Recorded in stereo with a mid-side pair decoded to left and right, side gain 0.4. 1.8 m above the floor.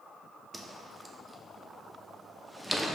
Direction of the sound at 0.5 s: 10° right.